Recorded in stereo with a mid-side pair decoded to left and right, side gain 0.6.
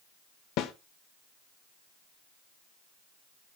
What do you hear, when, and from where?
0.6 s a snare drum: 65° left, 1.4 m